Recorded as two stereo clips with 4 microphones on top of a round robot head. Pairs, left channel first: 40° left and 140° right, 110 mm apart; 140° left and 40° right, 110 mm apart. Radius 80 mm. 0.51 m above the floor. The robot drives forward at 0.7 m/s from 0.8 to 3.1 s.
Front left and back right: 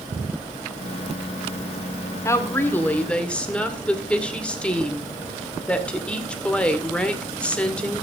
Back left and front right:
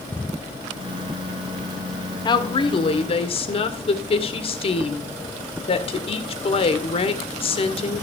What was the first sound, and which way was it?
A woman speaking, 100° left.